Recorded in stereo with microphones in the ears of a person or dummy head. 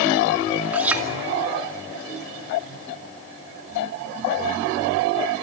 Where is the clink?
10° right (ahead or behind), 2.5 m.